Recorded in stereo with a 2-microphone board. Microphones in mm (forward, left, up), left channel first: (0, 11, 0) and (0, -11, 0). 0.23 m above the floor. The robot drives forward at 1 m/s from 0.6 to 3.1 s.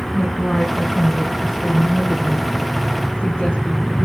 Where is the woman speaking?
35° left (ahead or behind), 9 m; by 4.1 s 45° left (ahead or behind), 7 m.